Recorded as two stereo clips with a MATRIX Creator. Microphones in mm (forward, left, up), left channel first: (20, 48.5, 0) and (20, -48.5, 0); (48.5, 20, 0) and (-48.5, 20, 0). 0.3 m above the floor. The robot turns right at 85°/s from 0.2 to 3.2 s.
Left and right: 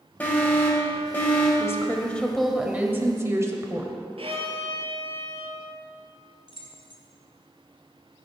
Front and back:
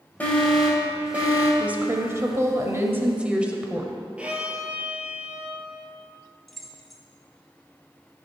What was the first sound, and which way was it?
An alarm, 45° left.